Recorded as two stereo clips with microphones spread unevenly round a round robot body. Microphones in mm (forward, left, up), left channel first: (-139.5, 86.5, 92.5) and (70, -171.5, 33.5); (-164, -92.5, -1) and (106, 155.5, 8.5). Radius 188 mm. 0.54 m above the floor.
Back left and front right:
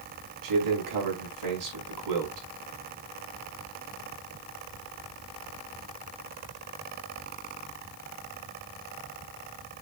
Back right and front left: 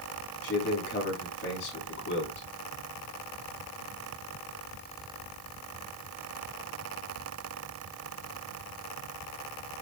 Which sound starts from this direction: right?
A man speaking, at 0.4 s.